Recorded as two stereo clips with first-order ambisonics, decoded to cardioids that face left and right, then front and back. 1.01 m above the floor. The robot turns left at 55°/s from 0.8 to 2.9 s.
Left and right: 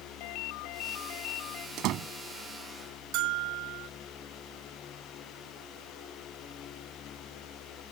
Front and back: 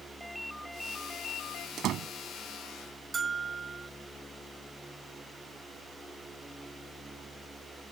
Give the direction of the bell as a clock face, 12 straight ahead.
4 o'clock.